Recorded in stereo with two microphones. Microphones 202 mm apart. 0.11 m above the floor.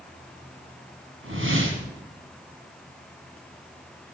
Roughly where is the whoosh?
Right.